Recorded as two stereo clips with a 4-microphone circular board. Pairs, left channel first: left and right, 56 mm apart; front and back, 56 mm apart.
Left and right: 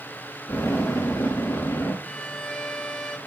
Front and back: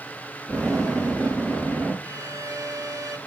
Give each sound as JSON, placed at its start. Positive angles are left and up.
{"t": 0.5, "sound": "an explosion", "azimuth_deg": 80, "distance_m": 6.5}
{"t": 2.0, "sound": "a violin", "azimuth_deg": 165, "distance_m": 1.3}